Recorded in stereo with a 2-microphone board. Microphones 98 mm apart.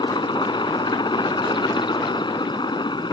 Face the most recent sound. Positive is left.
turn(degrees=50)  # may be behind; listen again after turning